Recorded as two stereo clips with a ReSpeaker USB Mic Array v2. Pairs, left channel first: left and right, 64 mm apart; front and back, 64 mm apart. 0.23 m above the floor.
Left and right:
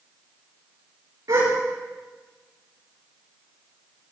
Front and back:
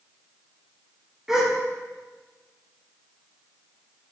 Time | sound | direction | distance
1.3 | a gasp | 100° right | 6 m